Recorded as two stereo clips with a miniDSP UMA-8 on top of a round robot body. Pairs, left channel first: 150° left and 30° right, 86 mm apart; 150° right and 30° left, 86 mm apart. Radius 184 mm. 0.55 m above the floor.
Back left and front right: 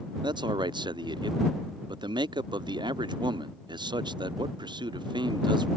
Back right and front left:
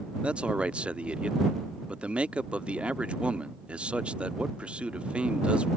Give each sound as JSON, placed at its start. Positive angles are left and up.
{"t": 0.2, "sound": "a man speaking", "azimuth_deg": -45}